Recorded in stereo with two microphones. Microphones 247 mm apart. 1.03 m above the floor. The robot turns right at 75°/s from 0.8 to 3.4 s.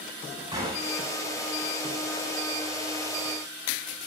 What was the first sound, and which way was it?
A gunshot, 15° right (ahead or behind).